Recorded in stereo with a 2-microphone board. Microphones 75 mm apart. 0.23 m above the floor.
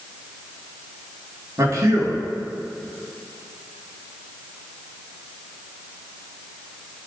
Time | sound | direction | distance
1.6 | a man speaking | 50° right (ahead or behind) | 4 m